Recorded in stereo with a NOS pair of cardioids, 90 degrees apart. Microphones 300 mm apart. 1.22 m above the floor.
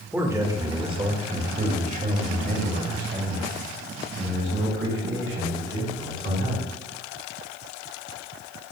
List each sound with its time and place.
0.1 s a man speaking: 5° right, 1.7 m; by 6.7 s 45° right, 5 m